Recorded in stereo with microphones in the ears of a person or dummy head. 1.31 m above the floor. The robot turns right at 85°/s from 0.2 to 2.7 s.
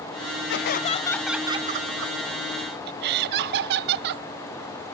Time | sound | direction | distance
0.5 | laughter | 115° left | ?